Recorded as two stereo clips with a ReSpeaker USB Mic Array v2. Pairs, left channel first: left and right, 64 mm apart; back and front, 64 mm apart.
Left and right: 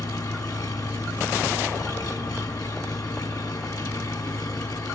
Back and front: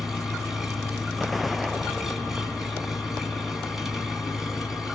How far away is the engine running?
About 3.5 m.